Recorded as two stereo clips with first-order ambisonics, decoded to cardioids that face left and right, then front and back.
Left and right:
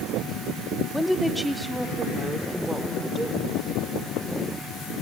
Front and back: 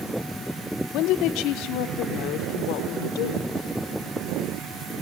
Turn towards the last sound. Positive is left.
turn(degrees=-15)